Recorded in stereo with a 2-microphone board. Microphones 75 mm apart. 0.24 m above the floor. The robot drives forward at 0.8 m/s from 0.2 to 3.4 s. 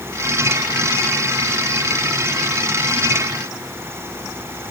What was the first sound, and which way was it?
Only background noise.